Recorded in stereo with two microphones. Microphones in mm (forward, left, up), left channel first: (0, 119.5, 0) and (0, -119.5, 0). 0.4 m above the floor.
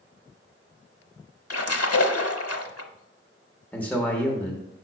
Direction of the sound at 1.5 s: 80° left.